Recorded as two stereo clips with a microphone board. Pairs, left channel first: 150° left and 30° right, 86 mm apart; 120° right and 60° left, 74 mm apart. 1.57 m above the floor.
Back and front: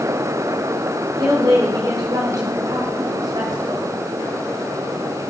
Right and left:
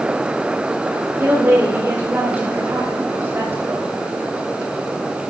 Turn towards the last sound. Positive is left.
turn(degrees=5)